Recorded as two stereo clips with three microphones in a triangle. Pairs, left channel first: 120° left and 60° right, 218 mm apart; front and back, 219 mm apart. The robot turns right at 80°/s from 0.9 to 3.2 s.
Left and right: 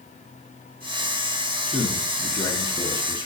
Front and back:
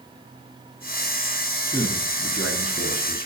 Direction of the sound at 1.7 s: 15° left.